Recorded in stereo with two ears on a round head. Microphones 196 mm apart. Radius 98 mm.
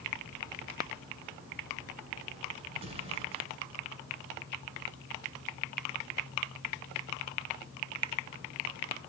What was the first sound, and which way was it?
An explosion, 25° right (ahead or behind).